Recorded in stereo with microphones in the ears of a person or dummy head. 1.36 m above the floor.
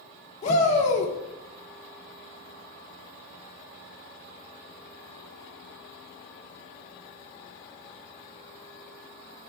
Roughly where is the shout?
Left.